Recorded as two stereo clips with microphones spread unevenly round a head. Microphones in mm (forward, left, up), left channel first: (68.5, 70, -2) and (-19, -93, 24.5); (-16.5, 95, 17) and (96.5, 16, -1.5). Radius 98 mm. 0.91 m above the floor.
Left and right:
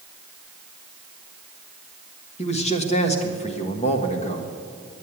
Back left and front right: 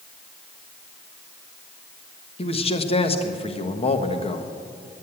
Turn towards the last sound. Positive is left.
turn(degrees=100)